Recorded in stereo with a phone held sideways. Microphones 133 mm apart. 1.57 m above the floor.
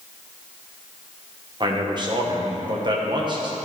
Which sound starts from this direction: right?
A man speaking, at 1.6 s.